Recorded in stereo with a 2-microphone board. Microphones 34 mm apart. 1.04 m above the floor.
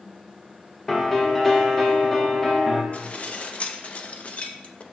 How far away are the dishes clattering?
About 0.6 m.